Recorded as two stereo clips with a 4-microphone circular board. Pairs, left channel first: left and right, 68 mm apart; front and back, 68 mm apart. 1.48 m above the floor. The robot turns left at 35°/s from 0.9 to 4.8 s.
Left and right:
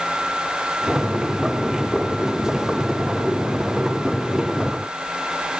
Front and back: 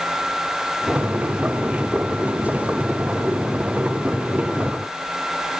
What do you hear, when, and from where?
Only background noise.